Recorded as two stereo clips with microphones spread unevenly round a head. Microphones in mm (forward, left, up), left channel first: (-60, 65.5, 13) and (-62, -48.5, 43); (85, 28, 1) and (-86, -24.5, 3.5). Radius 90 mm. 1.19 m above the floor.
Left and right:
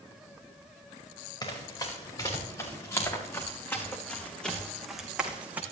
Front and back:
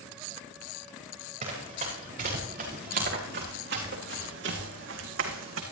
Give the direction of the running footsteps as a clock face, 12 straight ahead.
7 o'clock.